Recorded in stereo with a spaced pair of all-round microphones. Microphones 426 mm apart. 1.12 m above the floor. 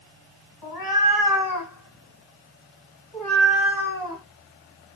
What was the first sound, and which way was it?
A cat meowing, 60° left (ahead or behind).